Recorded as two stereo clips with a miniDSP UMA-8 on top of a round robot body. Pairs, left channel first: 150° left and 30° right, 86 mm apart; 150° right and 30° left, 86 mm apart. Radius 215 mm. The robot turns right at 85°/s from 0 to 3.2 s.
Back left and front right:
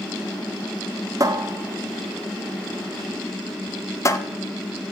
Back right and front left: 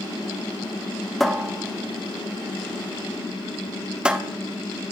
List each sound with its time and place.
1.2 s a cupboard door: 65° right, 1.0 m; by 4.2 s 105° left, 1.0 m